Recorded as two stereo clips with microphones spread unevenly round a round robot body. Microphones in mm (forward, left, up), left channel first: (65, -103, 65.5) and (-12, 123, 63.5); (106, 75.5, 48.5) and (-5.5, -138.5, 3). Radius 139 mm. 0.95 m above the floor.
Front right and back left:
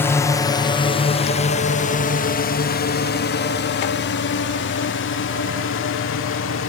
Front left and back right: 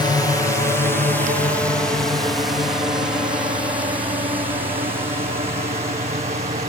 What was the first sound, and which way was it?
A drone, 10° right.